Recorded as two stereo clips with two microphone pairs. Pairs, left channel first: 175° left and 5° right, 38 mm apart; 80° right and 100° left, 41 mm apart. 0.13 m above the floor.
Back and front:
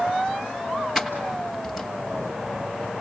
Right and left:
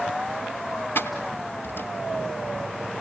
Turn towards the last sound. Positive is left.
turn(degrees=-90)